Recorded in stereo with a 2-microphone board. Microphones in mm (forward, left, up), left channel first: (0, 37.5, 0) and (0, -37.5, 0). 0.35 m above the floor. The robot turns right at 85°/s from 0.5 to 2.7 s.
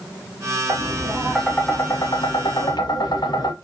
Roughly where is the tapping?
Ahead right.